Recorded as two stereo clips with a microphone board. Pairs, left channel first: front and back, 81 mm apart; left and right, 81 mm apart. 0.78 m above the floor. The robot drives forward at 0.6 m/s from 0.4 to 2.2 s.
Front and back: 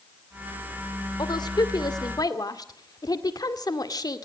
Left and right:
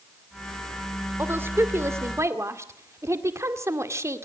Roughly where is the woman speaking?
Ahead right.